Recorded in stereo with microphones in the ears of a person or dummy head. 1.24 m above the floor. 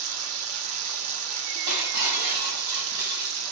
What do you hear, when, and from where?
0.0 s running water: 80° right, 0.9 m
1.7 s breaking glass: 55° right (ahead or behind), 4.5 m